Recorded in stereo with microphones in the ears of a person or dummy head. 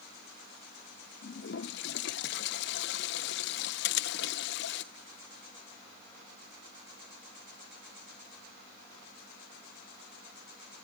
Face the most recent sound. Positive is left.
turn(degrees=55)  # may be behind; listen again after turning